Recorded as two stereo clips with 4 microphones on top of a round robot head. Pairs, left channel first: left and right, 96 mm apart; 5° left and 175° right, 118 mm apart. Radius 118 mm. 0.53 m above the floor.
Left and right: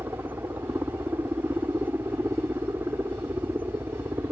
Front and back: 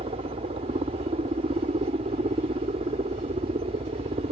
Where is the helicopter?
160° right.